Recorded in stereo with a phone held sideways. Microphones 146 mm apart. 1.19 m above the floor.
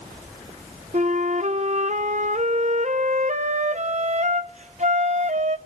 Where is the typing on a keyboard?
No typing on a keyboard in this recording.